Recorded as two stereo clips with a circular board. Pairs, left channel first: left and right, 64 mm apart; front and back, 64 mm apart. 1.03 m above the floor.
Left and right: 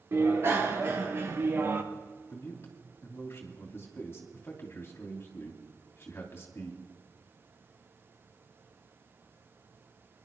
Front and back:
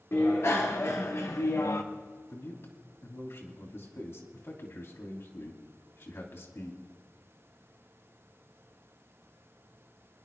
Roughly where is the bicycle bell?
Ahead right.